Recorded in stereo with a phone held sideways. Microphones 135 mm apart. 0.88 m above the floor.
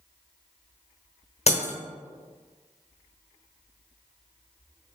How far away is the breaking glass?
About 0.8 m.